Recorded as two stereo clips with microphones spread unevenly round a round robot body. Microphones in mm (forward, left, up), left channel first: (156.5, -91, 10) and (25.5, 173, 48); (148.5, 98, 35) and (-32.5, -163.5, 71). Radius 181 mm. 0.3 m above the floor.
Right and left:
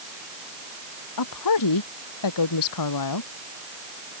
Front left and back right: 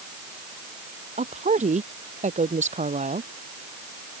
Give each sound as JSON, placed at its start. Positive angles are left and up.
{"t": 1.2, "sound": "a woman speaking", "azimuth_deg": -55}